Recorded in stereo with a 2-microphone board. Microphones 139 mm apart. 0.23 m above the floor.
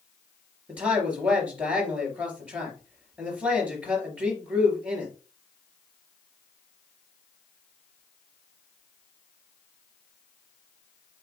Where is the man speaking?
10° right (ahead or behind), 3 m.